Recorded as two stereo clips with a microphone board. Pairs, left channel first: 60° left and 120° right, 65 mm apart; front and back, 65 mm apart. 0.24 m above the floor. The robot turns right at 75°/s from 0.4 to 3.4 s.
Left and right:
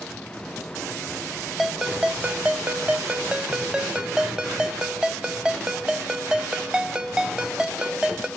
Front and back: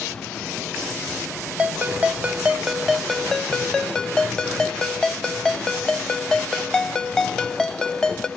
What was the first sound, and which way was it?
A ringtone, 160° left.